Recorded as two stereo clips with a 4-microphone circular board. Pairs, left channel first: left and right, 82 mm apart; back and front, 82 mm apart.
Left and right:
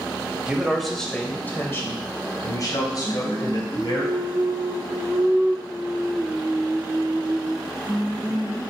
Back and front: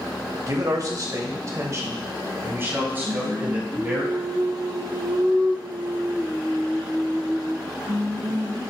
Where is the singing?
15° right, 1.6 m.